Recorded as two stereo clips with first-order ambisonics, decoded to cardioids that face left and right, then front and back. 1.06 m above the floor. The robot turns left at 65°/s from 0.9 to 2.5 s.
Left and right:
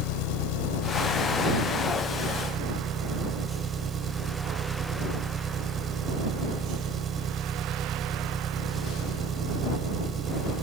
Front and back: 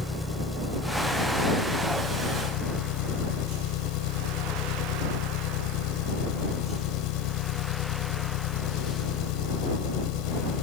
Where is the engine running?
80° left; by 10.6 s 25° right.